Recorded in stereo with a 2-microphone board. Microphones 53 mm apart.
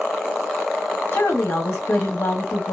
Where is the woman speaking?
60° left (ahead or behind), 0.8 m.